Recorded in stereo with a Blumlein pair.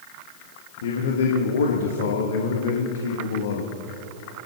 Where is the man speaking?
60° left, 1.3 m.